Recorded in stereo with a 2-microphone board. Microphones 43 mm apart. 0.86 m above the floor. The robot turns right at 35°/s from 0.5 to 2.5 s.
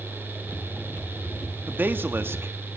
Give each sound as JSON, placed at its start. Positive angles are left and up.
{"t": 1.7, "sound": "a man speaking", "side_deg": -45, "distance_m": 1.4}